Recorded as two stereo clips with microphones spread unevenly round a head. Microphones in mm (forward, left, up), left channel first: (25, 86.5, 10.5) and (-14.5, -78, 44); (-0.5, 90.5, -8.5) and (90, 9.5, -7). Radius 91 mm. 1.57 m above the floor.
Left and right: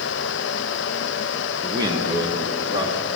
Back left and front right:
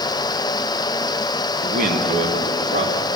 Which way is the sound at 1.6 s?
35° right.